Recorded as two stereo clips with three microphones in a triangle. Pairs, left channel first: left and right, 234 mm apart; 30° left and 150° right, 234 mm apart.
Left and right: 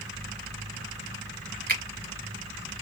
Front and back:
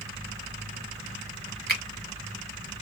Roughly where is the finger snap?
Behind right.